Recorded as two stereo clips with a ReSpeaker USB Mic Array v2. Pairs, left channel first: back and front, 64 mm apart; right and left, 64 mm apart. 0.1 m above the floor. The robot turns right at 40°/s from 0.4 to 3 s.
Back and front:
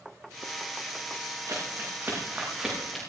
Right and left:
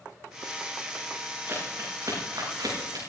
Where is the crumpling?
35° left, 8 m; by 3.1 s 95° left, 8 m.